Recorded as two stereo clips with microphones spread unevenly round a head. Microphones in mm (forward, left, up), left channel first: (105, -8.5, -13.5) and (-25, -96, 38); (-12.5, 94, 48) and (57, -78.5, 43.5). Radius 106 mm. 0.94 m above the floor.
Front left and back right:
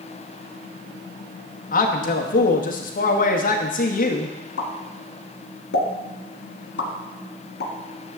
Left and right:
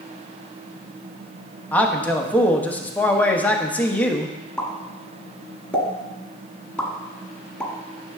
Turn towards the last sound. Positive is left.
turn(degrees=30)